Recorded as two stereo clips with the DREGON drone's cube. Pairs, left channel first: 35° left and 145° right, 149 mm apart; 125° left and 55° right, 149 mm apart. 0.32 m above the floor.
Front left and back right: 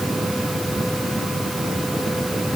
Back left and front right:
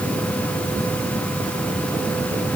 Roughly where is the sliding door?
No sliding door in this recording.